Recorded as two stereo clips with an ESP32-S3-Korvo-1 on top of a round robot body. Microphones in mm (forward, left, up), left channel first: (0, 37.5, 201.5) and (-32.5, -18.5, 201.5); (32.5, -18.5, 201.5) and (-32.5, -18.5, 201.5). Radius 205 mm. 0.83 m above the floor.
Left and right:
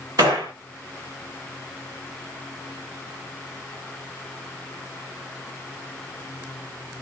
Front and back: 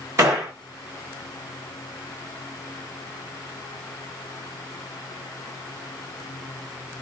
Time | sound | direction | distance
0.2 | a gunshot | 135° right | 0.6 m